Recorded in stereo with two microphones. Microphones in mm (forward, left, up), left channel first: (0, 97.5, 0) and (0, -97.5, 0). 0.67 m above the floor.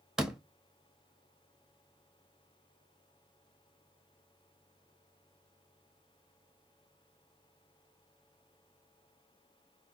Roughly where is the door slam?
Centre.